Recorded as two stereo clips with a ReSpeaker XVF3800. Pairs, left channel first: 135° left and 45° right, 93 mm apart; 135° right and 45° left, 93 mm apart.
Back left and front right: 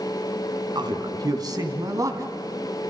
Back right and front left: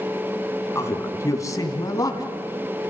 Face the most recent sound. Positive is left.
turn(degrees=-95)